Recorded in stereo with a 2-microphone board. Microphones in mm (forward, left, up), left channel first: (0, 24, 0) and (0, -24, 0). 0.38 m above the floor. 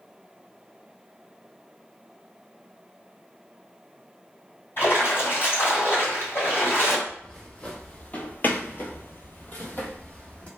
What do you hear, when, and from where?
4.8 s a splash: 55° left (ahead or behind), 1.7 m
7.1 s footsteps: 15° left (ahead or behind), 1.0 m; by 10.5 s 25° left (ahead or behind), 1.0 m